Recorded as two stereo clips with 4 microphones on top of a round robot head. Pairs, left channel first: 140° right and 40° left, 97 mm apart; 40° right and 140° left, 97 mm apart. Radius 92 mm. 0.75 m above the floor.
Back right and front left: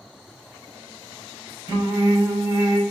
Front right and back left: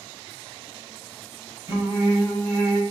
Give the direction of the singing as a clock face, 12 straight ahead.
9 o'clock.